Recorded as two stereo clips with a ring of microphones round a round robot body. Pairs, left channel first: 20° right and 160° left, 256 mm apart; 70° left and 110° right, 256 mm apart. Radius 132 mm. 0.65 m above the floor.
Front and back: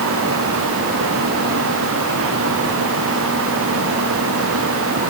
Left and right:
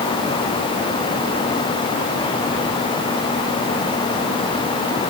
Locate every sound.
Only background noise.